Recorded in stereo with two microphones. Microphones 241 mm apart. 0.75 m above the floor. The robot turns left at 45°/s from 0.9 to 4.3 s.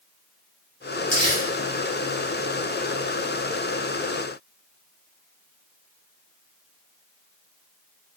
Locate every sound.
1.1 s crumpling: 65° left (ahead or behind), 2 m; by 1.4 s 75° left (ahead or behind), 2 m